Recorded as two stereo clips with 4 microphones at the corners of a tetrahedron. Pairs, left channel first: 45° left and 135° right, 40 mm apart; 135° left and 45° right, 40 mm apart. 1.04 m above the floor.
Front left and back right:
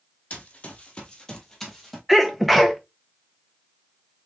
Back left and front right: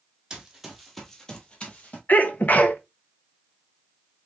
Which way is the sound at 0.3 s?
20° left.